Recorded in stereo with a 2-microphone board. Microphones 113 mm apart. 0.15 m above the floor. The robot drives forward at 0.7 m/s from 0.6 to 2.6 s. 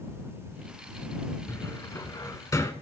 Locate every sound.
1.5 s a cupboard door: 25° left (ahead or behind), 0.8 m; by 2.7 s 30° left (ahead or behind), 0.7 m